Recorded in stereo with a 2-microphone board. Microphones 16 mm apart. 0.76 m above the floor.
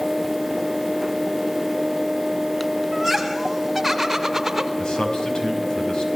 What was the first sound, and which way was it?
Laughter, centre (ahead or behind).